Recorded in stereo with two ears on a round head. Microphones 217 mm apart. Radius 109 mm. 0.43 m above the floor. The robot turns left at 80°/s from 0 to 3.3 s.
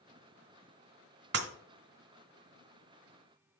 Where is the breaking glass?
45° right (ahead or behind), 1.0 m; by 1.5 s 55° right (ahead or behind), 1.0 m.